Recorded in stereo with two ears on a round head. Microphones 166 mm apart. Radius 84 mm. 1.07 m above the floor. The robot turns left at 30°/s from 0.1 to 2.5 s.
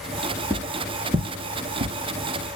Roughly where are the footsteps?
Centre.